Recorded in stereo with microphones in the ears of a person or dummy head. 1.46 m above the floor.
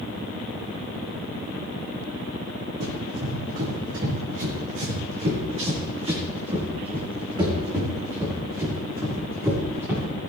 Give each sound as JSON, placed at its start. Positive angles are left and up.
{"t": 2.8, "sound": "running footsteps", "side_deg": -60, "distance_m": 5.0}